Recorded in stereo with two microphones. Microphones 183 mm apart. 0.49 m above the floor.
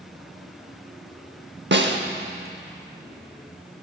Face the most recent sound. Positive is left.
turn(degrees=-70)  # may be behind; listen again after turning